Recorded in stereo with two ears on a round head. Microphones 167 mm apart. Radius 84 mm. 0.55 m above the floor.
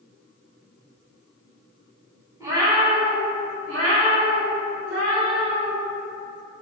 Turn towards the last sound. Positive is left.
turn(degrees=-65)  # may be behind; listen again after turning